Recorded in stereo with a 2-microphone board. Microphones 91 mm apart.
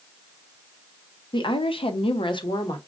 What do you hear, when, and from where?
1.3 s a woman speaking: 60° left (ahead or behind), 0.7 m; by 2.8 s 45° left (ahead or behind), 0.8 m